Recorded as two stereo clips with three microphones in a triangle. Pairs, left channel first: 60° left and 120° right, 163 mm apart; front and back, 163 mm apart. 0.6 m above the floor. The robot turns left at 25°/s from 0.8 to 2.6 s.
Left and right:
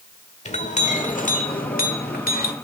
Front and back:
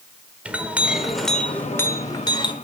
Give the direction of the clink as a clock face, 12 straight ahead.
9 o'clock.